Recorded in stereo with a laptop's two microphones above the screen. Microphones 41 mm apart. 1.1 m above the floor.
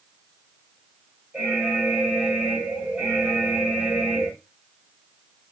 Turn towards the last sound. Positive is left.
turn(degrees=-20)  # may be behind; listen again after turning